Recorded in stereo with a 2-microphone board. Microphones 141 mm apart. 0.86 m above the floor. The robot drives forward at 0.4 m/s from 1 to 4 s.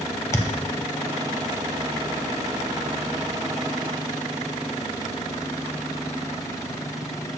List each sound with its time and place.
0.3 s a thud: 20° left (ahead or behind), 0.7 m